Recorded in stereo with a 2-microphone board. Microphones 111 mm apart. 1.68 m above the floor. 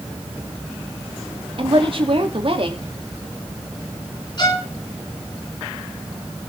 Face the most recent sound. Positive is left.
turn(degrees=45)  # may be behind; listen again after turning